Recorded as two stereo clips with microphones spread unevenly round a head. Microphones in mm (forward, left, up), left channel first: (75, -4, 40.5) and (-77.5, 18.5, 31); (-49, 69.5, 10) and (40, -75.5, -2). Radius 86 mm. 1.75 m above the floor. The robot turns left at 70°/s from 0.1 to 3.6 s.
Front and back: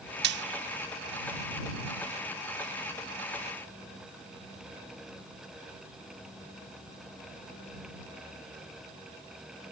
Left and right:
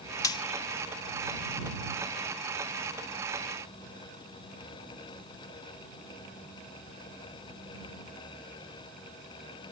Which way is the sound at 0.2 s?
170° right.